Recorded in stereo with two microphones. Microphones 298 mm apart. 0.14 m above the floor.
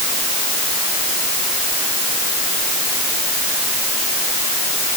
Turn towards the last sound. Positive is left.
No sound to turn to.